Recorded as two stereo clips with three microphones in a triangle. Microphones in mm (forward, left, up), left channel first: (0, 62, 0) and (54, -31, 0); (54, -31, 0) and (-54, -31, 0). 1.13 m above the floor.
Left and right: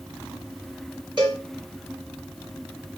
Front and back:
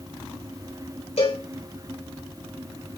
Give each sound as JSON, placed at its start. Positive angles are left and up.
{"t": 1.2, "sound": "a cowbell", "azimuth_deg": -15, "distance_m": 4.0}